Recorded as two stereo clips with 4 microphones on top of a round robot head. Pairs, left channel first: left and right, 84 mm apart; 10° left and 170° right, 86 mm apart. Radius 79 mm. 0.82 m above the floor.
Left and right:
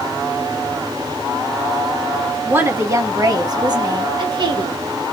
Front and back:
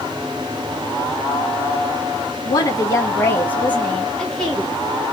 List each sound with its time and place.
2.5 s a woman speaking: 30° right, 0.9 m; by 4.8 s 80° right, 1.6 m